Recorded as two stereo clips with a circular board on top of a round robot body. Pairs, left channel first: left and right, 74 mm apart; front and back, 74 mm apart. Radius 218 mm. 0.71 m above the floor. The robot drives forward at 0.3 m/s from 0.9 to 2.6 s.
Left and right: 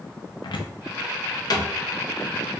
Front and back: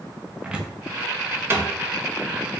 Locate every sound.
0.4 s a cupboard door: 100° left, 0.5 m; by 1.7 s 125° left, 0.6 m